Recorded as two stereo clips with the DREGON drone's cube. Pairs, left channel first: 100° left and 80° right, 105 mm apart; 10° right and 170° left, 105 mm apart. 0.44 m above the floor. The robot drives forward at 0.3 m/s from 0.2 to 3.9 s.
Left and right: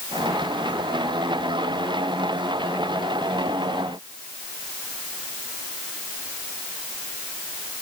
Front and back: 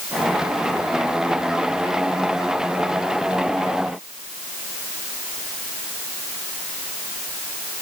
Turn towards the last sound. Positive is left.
No sound to turn to.